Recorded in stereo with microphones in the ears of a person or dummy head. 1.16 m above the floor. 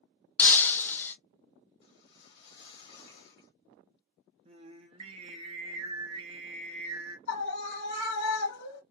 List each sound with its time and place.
0.4 s breaking glass: 10° left (ahead or behind), 0.5 m
1.8 s a whoosh: 60° left (ahead or behind), 1.3 m
4.5 s singing: 30° right (ahead or behind), 0.8 m
7.3 s a scream: 65° left (ahead or behind), 1.4 m